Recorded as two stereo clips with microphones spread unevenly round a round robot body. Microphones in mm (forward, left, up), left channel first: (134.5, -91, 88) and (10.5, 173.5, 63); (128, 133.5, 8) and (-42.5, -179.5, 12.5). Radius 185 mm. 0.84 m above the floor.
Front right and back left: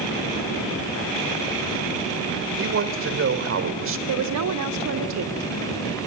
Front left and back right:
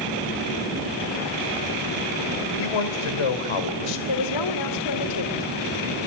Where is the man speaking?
75° left, 3 m.